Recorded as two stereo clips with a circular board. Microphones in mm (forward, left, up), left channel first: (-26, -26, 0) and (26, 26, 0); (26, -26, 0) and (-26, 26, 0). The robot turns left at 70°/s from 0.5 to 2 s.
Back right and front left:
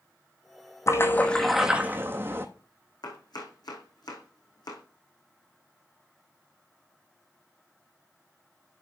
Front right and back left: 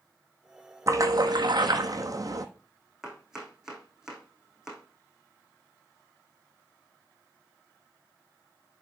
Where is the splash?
Straight behind, 1.1 m; by 2.5 s 100° left, 1.1 m.